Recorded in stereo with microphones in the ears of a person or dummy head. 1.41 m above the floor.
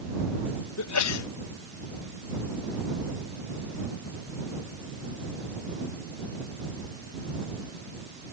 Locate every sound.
0.8 s a sneeze: 80° left